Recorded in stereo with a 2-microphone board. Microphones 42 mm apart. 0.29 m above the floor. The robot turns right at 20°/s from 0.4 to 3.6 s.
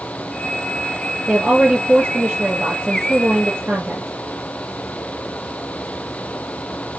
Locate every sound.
1.3 s a woman speaking: 150° right, 5 m; by 4.1 s 100° right, 5 m